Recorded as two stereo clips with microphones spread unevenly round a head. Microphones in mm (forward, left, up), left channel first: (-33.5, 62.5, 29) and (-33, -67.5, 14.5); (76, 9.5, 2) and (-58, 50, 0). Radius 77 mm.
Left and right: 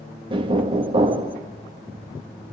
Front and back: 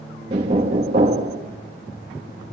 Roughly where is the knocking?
Behind right.